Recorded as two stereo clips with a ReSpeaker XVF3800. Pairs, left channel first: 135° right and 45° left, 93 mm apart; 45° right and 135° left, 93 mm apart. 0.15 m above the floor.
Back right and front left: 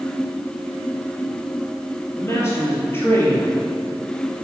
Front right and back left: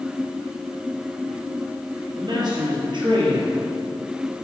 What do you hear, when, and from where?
2.2 s a man speaking: 165° left, 4 m; by 3.5 s 160° left, 4.5 m